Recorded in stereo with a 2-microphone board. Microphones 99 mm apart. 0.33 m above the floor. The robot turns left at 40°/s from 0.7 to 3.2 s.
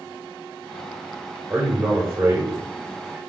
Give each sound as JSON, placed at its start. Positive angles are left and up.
{"t": 1.5, "sound": "a man speaking", "side_deg": -20, "distance_m": 0.9}